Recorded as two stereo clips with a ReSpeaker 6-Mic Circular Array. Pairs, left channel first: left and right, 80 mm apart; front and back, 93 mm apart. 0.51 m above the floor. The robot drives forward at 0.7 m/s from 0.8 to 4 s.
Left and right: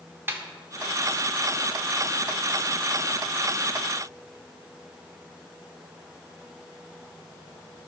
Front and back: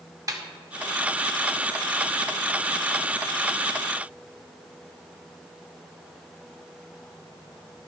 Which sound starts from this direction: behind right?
A snare drum, at 0.3 s.